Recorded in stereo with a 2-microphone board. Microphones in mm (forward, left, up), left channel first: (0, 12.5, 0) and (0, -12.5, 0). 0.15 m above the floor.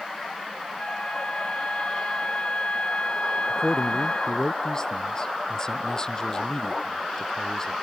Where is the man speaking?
30° left (ahead or behind).